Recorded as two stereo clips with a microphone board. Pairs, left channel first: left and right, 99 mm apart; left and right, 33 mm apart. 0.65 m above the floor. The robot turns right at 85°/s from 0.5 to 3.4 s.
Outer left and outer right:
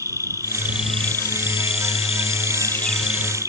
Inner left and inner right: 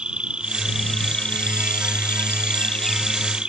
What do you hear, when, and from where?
0.0 s an insect: 35° right; by 3.5 s 145° right